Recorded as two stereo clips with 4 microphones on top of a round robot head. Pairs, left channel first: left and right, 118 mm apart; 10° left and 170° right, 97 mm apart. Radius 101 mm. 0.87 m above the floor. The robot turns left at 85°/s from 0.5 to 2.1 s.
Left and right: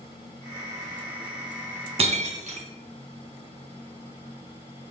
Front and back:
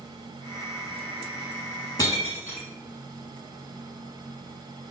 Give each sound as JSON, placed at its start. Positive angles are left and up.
{"t": 2.0, "sound": "breaking glass", "azimuth_deg": -55, "distance_m": 1.8}